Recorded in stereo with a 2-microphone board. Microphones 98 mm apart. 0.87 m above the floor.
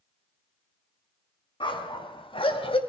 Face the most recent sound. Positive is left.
turn(degrees=65)  # may be behind; listen again after turning